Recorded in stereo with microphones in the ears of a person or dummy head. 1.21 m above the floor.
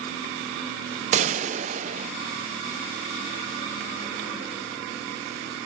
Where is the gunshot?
35° right (ahead or behind), 0.6 m.